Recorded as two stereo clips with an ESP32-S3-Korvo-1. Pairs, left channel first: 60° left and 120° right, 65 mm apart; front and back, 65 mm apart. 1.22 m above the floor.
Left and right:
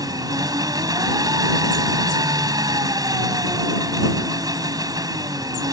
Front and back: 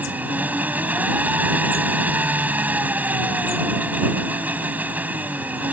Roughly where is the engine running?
Behind right.